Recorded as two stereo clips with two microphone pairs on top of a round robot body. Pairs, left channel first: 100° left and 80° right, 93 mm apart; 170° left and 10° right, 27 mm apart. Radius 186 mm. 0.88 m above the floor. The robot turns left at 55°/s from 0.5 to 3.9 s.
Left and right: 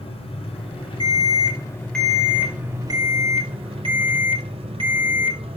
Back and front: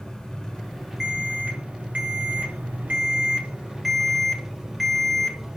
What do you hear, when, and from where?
0.0 s an engine running: 105° left, 5 m; by 5.6 s 85° right, 5 m
1.0 s an alarm: 70° left, 6 m; by 5.4 s 90° right, 6 m